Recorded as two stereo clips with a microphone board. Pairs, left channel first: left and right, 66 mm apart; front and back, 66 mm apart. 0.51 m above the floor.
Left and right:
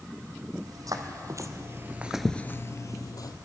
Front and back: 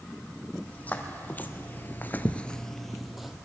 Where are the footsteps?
65° right, 1.6 m; by 3.3 s 95° left, 1.1 m.